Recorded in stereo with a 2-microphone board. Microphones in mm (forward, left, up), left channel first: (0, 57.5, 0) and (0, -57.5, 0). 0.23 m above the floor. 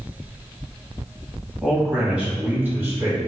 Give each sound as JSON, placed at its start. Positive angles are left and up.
{"t": 1.6, "sound": "a man speaking", "side_deg": 0, "distance_m": 1.0}